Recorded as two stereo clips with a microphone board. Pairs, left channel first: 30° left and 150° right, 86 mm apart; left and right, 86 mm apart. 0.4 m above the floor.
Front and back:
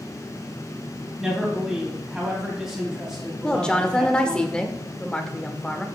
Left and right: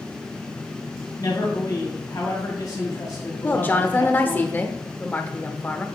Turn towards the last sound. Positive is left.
turn(degrees=90)